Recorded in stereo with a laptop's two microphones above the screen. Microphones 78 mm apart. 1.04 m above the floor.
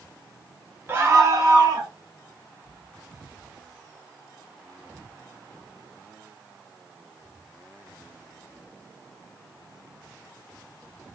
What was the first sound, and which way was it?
A scream, 25° right (ahead or behind).